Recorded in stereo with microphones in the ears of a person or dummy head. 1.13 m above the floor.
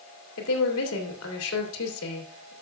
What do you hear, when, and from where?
0.4 s a woman speaking: 85° left, 2.5 m